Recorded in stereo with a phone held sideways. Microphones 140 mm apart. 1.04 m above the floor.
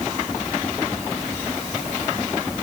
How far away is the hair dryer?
I don't hear a hair dryer.